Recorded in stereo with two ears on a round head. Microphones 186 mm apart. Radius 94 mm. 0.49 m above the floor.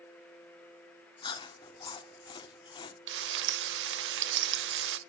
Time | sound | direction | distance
1.2 | chewing | 25° left (ahead or behind) | 1.3 m
3.1 | frying | 60° right (ahead or behind) | 0.7 m